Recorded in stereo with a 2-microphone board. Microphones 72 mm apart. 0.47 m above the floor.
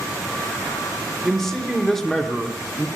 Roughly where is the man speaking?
Centre.